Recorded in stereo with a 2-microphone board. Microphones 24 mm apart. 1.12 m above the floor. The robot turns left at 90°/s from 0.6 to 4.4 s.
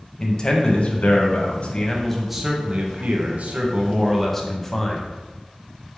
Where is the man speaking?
145° left, 0.8 m; by 5.0 s 160° left, 0.8 m.